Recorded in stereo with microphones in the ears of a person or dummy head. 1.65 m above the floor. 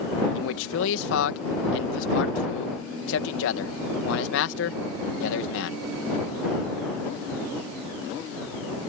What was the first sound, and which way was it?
A man speaking, 80° left.